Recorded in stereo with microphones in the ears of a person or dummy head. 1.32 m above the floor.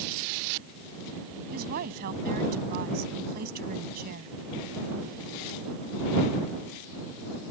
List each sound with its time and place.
1.5 s a woman speaking: 50° right (ahead or behind)